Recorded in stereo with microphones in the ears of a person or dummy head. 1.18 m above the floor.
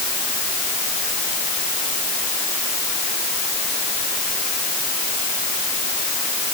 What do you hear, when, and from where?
Only background noise.